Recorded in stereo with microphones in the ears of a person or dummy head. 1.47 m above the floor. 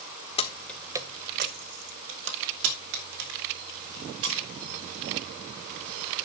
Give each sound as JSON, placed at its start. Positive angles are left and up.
{"t": 0.4, "sound": "keys jangling", "side_deg": 25, "distance_m": 1.1}